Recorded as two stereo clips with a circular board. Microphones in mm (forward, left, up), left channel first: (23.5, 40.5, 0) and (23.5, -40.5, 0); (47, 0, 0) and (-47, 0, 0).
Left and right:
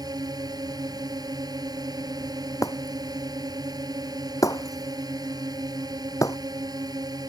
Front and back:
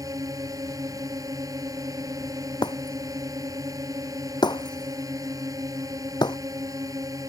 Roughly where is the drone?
Behind right.